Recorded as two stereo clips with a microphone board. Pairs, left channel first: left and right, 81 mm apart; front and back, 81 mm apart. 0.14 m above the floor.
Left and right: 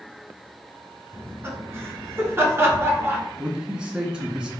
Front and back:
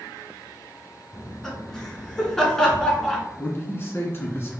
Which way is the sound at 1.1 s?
80° right.